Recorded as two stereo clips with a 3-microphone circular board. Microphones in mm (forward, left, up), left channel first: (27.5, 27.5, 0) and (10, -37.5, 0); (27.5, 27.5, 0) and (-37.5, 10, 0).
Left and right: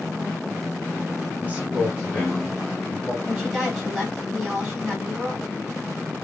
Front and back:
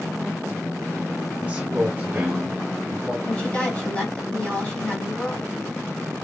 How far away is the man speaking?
About 1.2 m.